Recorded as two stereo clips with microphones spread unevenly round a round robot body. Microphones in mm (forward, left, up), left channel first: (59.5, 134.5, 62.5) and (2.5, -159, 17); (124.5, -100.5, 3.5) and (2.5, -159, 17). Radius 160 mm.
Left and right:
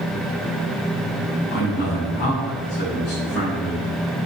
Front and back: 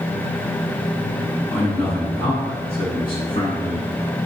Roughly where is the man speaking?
Left.